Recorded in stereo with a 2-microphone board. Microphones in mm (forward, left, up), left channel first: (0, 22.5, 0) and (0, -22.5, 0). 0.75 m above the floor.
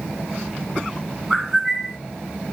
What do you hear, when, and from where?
1.3 s a bird: centre (ahead or behind), 1.4 m